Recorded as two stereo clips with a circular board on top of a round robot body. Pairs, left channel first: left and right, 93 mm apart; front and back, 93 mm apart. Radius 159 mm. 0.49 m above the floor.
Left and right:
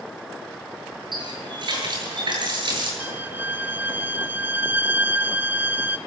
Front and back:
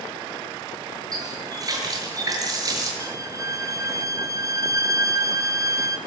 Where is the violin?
150° right, 1.6 m.